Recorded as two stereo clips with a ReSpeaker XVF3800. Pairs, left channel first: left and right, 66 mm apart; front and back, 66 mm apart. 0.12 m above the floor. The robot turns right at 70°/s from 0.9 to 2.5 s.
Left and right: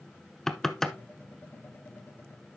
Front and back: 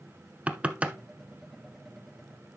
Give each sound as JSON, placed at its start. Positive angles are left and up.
{"t": 0.5, "sound": "knocking", "azimuth_deg": 160, "distance_m": 0.7}